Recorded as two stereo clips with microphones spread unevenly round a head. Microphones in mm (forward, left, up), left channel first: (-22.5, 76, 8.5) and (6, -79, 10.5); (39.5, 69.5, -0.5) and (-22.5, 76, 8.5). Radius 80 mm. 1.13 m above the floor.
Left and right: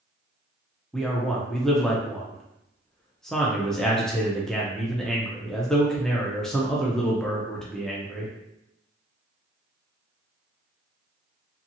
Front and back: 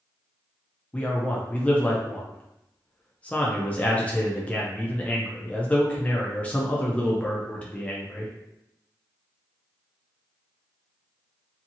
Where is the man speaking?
20° left, 0.5 m.